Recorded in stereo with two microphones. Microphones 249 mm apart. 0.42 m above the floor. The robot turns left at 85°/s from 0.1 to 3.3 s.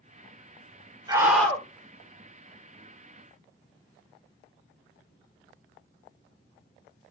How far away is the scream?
About 1.6 m.